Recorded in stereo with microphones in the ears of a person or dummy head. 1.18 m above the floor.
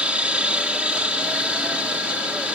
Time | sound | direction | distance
0.0 | a helicopter | 5° right (ahead or behind) | ?